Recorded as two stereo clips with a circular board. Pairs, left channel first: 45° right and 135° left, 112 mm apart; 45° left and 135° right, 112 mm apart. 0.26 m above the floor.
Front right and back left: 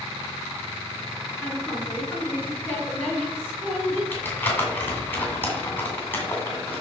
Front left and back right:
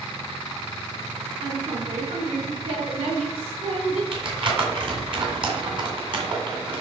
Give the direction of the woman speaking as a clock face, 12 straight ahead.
4 o'clock.